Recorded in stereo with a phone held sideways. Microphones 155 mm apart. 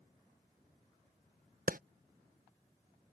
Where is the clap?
65° right (ahead or behind).